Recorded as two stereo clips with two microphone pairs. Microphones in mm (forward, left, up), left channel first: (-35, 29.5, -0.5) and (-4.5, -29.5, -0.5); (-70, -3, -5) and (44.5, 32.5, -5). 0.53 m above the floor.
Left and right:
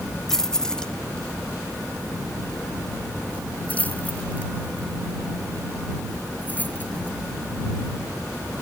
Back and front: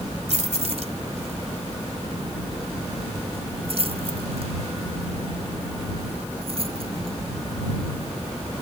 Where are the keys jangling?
35° left; by 7.2 s 55° left.